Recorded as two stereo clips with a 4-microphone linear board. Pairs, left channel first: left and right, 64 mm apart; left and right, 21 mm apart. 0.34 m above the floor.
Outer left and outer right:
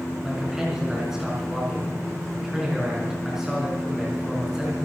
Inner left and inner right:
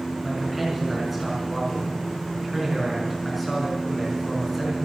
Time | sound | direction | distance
0.2 | a man speaking | 10° right (ahead or behind) | 5 m